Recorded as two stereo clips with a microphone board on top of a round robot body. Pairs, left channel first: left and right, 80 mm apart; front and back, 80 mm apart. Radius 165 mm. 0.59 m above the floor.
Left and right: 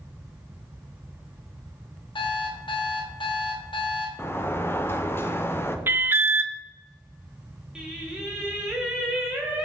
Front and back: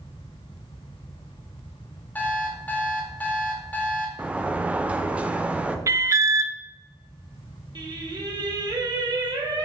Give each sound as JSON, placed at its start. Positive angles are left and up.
{"t": 2.1, "sound": "an alarm clock", "azimuth_deg": 70, "distance_m": 0.7}
{"t": 4.2, "sound": "a sliding door", "azimuth_deg": 120, "distance_m": 0.6}
{"t": 5.9, "sound": "an alarm", "azimuth_deg": -145, "distance_m": 0.5}
{"t": 7.8, "sound": "singing", "azimuth_deg": -170, "distance_m": 1.2}